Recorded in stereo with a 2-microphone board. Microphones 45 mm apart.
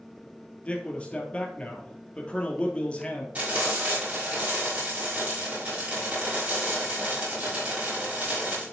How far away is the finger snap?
I don't hear a finger snap.